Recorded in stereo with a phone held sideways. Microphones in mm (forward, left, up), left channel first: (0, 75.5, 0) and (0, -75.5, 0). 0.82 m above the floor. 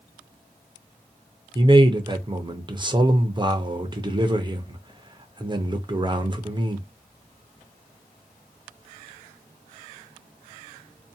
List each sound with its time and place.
1.6 s a man speaking: 30° right (ahead or behind), 0.7 m